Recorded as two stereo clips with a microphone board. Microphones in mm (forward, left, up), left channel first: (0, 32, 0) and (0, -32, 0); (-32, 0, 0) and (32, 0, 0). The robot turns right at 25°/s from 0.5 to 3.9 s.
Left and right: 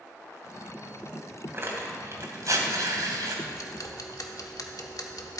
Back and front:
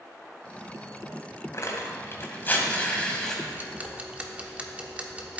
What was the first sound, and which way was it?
Tearing paper, 145° right.